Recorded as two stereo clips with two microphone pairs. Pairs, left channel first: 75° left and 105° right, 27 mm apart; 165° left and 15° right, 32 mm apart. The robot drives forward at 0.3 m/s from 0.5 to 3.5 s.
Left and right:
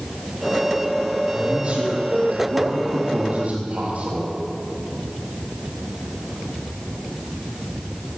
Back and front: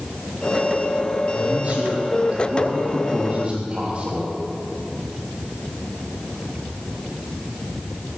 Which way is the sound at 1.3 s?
55° right.